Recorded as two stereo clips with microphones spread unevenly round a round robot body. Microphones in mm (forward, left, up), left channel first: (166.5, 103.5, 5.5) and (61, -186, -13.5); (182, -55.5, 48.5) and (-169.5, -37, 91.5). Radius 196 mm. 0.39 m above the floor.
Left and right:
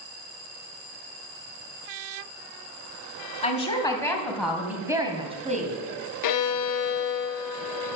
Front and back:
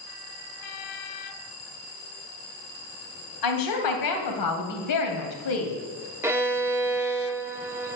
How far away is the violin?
About 0.7 m.